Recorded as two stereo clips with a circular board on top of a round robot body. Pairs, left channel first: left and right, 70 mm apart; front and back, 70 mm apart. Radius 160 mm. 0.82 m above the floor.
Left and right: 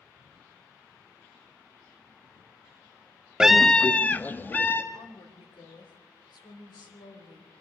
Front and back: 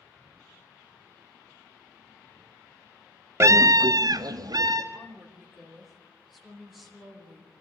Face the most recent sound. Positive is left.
turn(degrees=90)